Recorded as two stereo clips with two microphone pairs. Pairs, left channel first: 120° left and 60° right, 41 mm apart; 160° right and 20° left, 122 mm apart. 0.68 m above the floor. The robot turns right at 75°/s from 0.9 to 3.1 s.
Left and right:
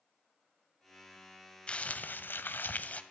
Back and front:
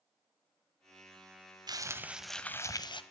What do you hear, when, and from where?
1.7 s crumpling: 65° left, 0.8 m; by 3.0 s 165° left, 0.8 m